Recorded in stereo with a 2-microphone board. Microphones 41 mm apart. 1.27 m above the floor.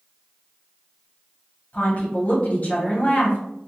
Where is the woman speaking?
40° left (ahead or behind), 1.0 m.